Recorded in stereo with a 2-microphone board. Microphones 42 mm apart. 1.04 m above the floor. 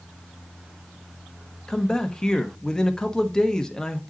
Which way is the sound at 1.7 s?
15° left (ahead or behind).